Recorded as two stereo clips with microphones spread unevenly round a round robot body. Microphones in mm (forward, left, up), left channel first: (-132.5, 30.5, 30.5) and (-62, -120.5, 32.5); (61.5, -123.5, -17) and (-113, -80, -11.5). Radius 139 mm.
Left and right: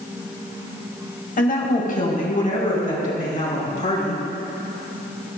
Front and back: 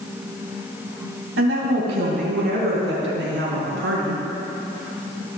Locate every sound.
1.4 s a woman speaking: 145° left, 2.5 m; by 4.2 s 155° left, 5 m